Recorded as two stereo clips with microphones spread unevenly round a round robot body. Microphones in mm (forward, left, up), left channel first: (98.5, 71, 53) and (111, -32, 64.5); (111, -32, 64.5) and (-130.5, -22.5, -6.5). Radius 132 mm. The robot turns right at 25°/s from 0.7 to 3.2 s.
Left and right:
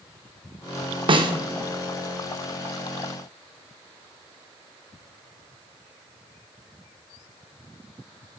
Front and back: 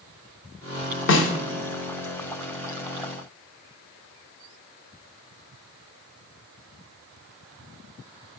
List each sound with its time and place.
1.1 s a snare drum: 45° right, 0.8 m; by 1.3 s 35° right, 0.8 m